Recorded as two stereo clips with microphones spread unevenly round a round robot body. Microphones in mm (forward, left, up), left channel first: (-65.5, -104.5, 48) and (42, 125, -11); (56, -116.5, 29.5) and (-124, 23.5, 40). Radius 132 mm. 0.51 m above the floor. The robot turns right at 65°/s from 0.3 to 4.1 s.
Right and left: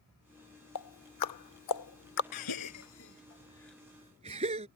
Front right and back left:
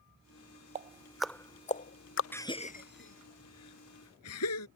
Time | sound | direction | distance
0.8 | ticking | 160° right | ?
2.3 | a gasp | 120° right | ?